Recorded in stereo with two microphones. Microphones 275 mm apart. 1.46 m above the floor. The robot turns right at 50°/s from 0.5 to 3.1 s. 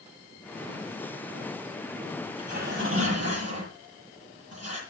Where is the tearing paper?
160° right, 8.5 m; by 4.8 s 120° right, 8.5 m.